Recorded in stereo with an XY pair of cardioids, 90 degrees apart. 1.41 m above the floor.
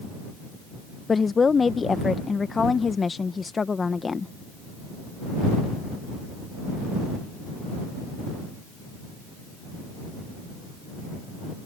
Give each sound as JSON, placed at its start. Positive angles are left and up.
{"t": 1.1, "sound": "a woman speaking", "azimuth_deg": 35}